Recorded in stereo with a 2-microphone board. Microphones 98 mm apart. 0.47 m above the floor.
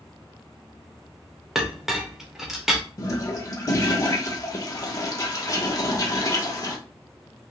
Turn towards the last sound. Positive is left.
turn(degrees=35)  # may be behind; listen again after turning